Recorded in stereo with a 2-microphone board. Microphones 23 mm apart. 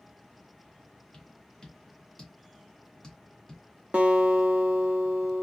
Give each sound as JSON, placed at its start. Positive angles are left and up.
{"t": 1.1, "sound": "tapping", "side_deg": 30, "distance_m": 1.4}
{"t": 3.9, "sound": "a guitar", "side_deg": -65, "distance_m": 0.9}